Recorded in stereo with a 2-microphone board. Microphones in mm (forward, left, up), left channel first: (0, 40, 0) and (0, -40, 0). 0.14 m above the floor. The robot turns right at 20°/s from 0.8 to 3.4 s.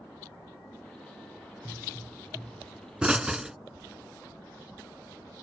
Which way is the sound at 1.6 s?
25° right (ahead or behind).